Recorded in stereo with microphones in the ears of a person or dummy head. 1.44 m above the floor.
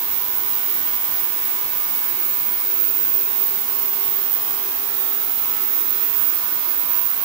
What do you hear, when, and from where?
Only background noise.